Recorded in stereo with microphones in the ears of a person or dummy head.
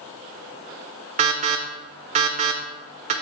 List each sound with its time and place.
1.2 s an alarm: 40° right (ahead or behind), 1.1 m